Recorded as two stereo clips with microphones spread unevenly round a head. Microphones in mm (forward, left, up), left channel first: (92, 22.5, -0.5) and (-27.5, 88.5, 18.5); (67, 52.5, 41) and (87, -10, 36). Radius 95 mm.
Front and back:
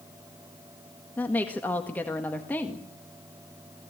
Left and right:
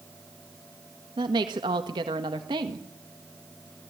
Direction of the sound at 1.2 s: 115° right.